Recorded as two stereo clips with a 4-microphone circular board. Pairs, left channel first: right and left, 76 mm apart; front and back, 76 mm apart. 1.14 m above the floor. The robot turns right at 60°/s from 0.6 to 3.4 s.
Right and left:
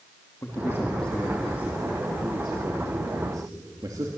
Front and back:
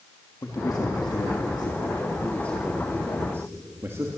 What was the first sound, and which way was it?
A man speaking, 40° right.